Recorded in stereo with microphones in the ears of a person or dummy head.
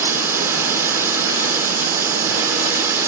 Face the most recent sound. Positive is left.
turn(degrees=-10)  # may be behind; listen again after turning